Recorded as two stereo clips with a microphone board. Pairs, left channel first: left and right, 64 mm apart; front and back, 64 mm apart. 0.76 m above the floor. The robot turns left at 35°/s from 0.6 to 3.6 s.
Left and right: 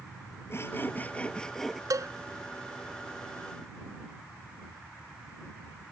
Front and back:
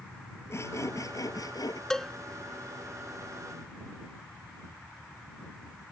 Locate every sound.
0.5 s sawing: 40° left; by 1.8 s straight ahead
1.9 s a cowbell: 80° right; by 2.1 s 90° right